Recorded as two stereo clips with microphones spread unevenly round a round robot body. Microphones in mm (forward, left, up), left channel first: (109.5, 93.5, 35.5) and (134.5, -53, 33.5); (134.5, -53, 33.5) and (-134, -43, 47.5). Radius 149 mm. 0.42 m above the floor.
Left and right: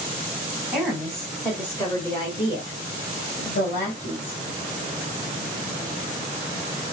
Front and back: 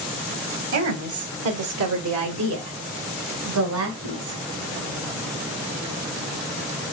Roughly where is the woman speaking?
Behind.